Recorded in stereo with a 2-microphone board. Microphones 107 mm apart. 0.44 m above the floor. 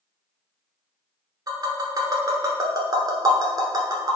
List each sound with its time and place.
1.5 s tapping: 40° right (ahead or behind), 0.9 m